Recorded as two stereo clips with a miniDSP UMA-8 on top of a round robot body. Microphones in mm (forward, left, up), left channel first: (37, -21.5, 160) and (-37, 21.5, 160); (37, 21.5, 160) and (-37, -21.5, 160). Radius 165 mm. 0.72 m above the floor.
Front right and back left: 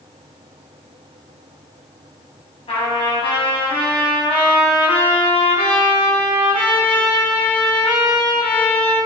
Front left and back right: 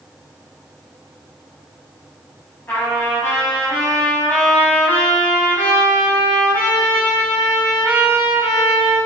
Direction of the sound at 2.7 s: 35° right.